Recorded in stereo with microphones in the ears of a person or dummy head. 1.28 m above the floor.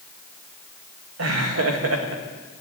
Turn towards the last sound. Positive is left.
turn(degrees=-75)  # may be behind; listen again after turning